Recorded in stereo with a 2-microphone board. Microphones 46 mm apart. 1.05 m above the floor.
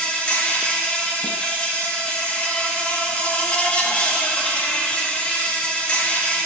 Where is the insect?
25° left (ahead or behind), 0.9 m.